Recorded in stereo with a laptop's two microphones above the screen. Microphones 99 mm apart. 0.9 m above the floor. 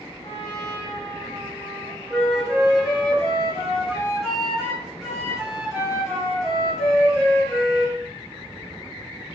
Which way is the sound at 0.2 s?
70° left (ahead or behind).